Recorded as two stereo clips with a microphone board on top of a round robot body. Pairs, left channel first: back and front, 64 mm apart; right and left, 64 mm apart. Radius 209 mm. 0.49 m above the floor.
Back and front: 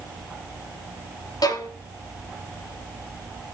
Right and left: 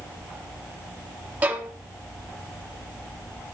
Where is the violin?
155° left, 1.9 m.